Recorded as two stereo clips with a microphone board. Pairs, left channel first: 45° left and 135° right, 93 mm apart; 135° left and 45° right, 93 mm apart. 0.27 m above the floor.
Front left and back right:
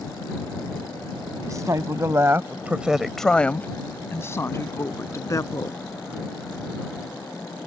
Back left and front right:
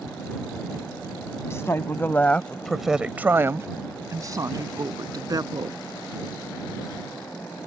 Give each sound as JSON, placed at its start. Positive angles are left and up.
{"t": 1.4, "sound": "a woman speaking", "azimuth_deg": -175}